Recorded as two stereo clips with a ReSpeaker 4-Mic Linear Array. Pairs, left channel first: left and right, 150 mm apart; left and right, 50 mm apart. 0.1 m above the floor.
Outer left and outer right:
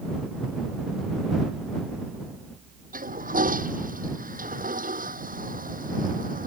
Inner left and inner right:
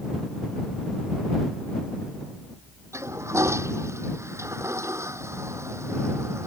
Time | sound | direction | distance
2.9 | a toilet flushing | 70° right (ahead or behind) | ?